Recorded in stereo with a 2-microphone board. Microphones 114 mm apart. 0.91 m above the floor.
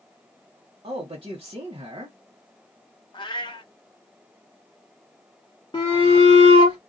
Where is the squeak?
I don't hear a squeak.